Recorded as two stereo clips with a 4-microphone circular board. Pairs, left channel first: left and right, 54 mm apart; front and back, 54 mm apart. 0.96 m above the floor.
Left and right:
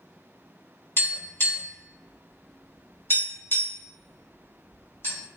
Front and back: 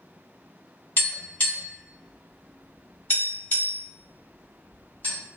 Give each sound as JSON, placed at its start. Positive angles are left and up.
{"t": 1.0, "sound": "tapping", "azimuth_deg": 45, "distance_m": 1.4}